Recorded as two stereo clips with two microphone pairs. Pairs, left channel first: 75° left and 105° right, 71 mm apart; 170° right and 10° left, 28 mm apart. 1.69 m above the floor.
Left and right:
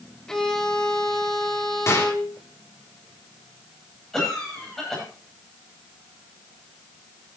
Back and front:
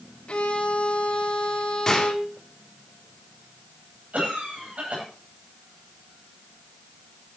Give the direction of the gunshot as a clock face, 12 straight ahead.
8 o'clock.